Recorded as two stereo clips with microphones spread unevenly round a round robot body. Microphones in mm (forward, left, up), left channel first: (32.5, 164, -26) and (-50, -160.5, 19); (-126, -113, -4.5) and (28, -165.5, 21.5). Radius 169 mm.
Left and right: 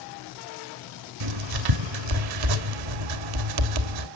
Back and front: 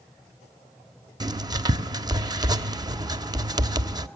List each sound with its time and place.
1.2 s writing: 90° right, 1.3 m